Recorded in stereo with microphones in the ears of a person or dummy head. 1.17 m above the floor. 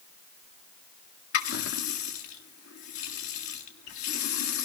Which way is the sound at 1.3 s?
85° left.